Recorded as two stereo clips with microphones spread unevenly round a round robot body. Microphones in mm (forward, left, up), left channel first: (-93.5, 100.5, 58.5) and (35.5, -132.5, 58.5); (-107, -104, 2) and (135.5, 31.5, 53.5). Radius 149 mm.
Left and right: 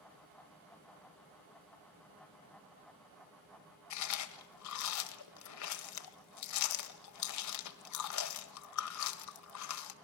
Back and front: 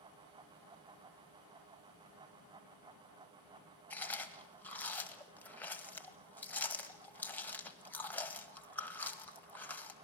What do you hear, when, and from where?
3.9 s chewing: 130° left, 1.5 m